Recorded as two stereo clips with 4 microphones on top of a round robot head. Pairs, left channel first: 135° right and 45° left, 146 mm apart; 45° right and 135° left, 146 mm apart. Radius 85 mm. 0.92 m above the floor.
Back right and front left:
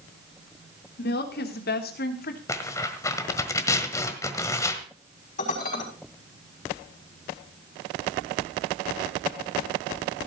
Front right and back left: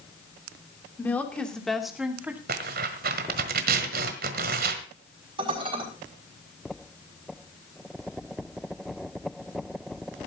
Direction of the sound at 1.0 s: 125° right.